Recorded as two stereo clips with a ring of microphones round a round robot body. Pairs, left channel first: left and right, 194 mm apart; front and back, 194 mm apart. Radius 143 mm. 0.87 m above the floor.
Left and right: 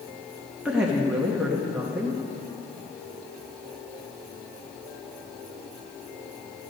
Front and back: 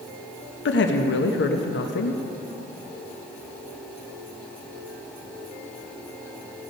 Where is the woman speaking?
5° right, 0.9 m.